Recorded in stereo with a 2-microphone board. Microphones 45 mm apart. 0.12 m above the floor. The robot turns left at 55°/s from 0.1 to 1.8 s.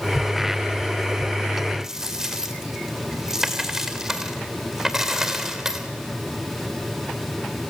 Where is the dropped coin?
5° right (ahead or behind), 2.5 m.